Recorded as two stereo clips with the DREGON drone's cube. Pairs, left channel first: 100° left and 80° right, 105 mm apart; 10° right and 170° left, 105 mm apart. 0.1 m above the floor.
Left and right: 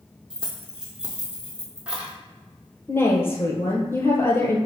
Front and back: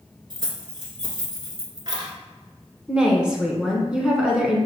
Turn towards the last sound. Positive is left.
turn(degrees=100)